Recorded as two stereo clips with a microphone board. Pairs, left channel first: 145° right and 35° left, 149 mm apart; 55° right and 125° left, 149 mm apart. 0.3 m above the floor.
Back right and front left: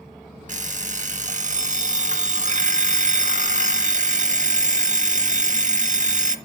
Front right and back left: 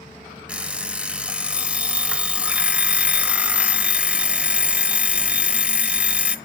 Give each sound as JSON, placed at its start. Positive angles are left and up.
{"t": 0.5, "sound": "an alarm clock", "azimuth_deg": 45, "distance_m": 0.5}